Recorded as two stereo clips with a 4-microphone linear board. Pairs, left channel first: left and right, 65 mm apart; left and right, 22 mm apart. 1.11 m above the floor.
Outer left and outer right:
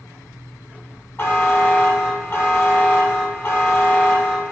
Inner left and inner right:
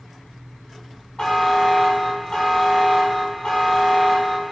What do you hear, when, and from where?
1.2 s a buzzer: 35° left (ahead or behind), 1.1 m